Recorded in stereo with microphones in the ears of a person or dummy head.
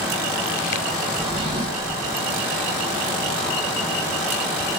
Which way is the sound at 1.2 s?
20° right (ahead or behind).